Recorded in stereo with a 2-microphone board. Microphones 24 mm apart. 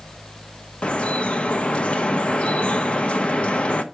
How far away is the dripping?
About 1.1 m.